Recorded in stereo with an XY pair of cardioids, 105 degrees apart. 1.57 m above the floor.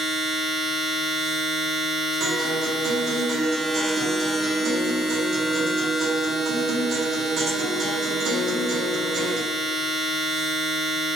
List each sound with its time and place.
0.0 s a machine running: 40° right, 1.5 m
2.2 s a guitar: 60° right, 1.1 m